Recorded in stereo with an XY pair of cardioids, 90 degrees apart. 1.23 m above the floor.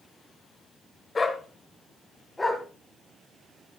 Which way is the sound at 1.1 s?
30° left.